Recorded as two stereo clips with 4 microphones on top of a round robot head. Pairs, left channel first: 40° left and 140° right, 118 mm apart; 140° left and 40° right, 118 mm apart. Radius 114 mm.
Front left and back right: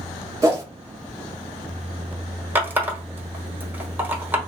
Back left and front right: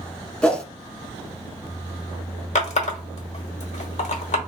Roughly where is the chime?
I don't hear a chime.